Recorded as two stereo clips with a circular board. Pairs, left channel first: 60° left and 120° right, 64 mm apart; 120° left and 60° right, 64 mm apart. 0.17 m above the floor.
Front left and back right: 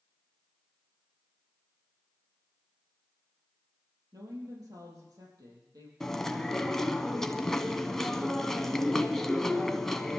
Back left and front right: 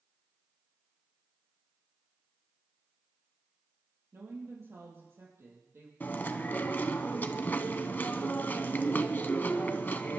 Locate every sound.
4.1 s a woman speaking: 105° right, 5 m
6.0 s chewing: 135° left, 0.8 m